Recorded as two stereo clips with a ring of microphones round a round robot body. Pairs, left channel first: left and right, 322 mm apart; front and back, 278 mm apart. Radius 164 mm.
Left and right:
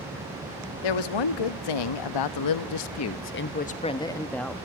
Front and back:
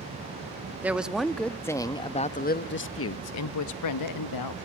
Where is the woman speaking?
95° left, 2 m; by 4.5 s straight ahead, 1.6 m.